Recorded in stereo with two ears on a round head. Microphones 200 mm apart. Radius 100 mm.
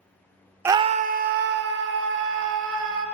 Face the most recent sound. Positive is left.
turn(degrees=-60)  # may be behind; listen again after turning